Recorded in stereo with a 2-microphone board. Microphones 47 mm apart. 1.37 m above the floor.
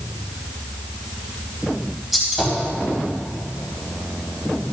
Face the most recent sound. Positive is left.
turn(degrees=-10)  # may be behind; listen again after turning